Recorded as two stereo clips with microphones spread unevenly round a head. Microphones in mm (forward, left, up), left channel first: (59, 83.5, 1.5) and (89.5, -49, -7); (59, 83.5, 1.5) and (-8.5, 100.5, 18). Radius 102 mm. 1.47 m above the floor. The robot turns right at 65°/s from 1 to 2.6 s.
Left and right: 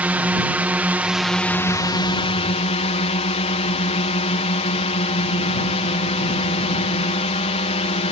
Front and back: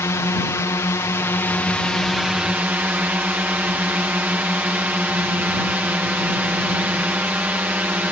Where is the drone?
5° right; by 8.1 s 100° left.